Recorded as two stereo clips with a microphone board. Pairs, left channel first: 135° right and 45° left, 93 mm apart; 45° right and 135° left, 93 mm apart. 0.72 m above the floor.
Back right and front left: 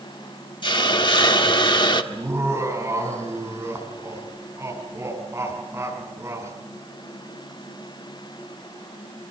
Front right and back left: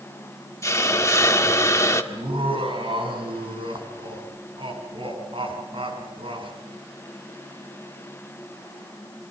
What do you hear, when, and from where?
0.6 s a hiss: 100° right, 1.5 m
2.1 s laughter: 110° left, 6 m